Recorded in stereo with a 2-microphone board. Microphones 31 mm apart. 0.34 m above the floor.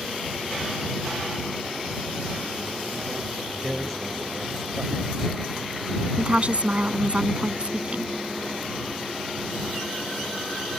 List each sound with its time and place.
3.6 s a man speaking: centre (ahead or behind)
6.2 s a woman speaking: 45° right (ahead or behind)